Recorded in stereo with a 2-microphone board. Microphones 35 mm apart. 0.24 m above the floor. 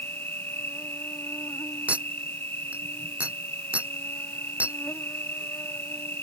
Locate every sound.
0.0 s an insect: 75° left (ahead or behind)
1.9 s a clink: 40° right (ahead or behind)